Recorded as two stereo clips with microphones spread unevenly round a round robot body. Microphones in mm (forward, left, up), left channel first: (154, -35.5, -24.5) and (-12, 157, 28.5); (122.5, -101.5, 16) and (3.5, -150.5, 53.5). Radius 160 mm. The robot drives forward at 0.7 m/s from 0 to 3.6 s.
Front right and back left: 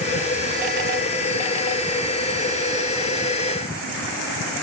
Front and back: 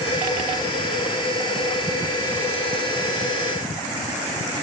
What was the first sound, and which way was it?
Only background noise.